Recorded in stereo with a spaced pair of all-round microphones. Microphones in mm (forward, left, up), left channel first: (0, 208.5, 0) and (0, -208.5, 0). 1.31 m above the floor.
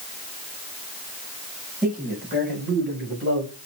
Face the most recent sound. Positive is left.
turn(degrees=-35)  # may be behind; listen again after turning